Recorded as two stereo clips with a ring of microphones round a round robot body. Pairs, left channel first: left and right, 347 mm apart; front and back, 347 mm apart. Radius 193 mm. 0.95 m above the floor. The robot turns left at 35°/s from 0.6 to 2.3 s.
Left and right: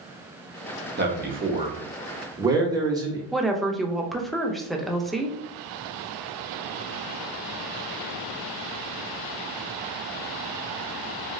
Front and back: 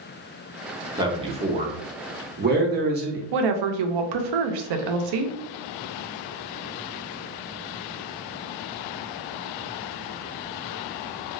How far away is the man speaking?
About 0.9 m.